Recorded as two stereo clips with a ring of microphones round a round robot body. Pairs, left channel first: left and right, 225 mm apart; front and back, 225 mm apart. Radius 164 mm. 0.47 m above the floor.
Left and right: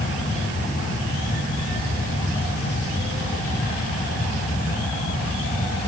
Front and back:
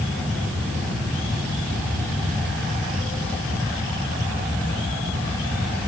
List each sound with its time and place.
Only background noise.